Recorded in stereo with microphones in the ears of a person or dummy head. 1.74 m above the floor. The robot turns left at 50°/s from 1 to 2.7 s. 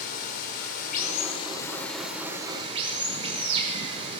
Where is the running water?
50° left, 5.5 m; by 4.2 s 35° right, 5.5 m.